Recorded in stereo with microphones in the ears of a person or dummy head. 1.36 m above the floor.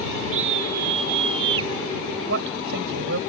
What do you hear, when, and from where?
0.3 s a scream: 40° right (ahead or behind); by 1.7 s 25° right (ahead or behind)
2.3 s a man speaking: 65° right (ahead or behind)